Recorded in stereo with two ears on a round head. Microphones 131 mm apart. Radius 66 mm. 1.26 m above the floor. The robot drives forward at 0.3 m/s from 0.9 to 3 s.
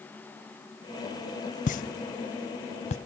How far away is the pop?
About 0.5 m.